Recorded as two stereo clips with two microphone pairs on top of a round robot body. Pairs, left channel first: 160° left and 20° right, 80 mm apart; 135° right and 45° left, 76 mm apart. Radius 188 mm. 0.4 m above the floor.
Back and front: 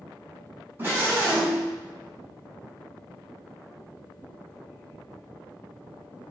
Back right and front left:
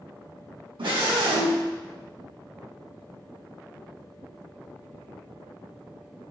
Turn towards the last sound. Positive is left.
turn(degrees=50)